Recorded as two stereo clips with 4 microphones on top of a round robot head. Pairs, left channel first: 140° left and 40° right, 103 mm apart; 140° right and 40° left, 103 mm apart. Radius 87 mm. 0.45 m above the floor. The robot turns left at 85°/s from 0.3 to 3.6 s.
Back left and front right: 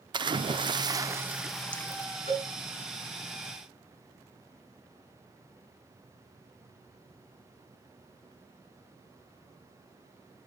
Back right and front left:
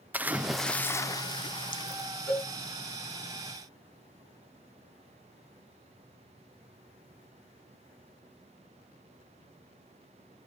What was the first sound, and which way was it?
A splash, 25° right.